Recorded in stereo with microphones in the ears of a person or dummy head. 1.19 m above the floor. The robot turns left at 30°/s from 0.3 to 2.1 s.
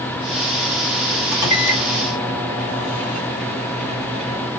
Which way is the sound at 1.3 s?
65° left (ahead or behind).